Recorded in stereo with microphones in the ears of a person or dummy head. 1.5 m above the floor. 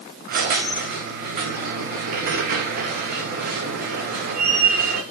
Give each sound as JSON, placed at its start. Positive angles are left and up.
{"t": 0.3, "sound": "a squeak", "side_deg": -55, "distance_m": 1.2}